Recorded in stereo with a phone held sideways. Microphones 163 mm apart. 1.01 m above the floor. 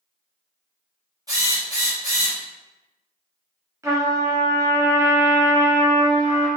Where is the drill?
20° right (ahead or behind), 1.4 m.